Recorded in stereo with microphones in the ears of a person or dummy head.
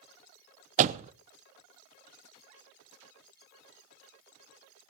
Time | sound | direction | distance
0.8 | a door slam | 40° right (ahead or behind) | 0.5 m